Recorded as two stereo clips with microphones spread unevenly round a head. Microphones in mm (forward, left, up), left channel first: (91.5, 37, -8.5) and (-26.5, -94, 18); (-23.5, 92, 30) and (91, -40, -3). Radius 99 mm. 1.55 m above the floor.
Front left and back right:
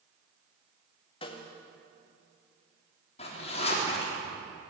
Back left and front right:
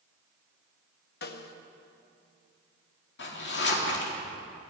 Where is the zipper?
110° left, 3.5 m.